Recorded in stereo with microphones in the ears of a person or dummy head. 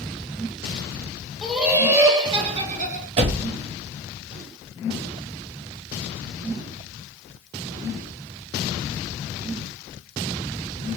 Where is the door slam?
40° right (ahead or behind), 0.6 m.